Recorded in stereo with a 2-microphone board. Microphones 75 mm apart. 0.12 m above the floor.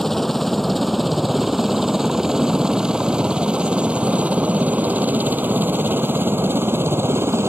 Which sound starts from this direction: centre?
A helicopter, at 0.0 s.